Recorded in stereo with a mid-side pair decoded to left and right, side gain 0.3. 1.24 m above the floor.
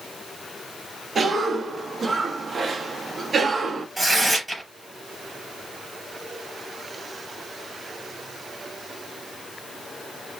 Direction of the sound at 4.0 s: 25° right.